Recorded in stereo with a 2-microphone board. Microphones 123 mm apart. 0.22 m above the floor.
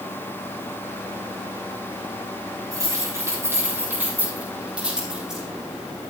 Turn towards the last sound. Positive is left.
turn(degrees=-5)  # may be behind; listen again after turning